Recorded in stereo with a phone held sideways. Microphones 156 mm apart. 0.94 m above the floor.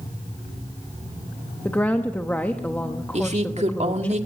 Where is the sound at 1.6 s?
10° left (ahead or behind), 0.9 m.